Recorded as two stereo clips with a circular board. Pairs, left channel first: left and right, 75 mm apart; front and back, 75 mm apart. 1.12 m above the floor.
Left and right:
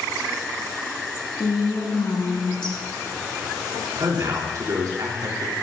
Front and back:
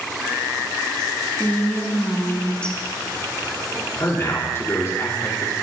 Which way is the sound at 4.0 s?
55° right.